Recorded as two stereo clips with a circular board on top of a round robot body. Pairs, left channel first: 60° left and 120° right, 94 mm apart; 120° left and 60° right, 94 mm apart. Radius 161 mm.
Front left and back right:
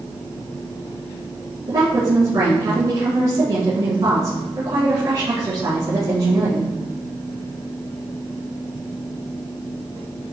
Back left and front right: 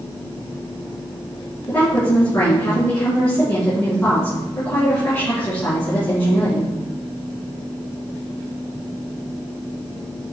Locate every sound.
1.7 s a woman speaking: 170° right, 5.5 m